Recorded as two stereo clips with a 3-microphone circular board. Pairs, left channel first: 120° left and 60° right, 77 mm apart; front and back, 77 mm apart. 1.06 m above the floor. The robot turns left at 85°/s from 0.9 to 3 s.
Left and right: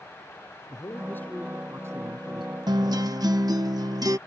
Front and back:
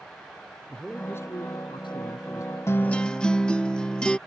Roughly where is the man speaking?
Left.